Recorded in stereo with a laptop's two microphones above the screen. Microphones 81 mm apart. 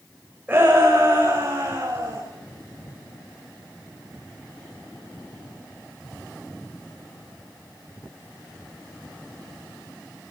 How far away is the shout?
About 6 m.